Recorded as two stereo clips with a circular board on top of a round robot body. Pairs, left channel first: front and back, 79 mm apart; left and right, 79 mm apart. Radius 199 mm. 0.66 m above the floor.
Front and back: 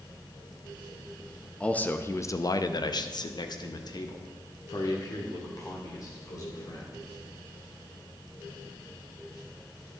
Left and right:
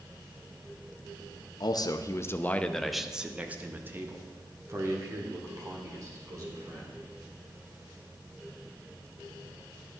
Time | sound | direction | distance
1.6 | a man speaking | 75° left | 1.1 m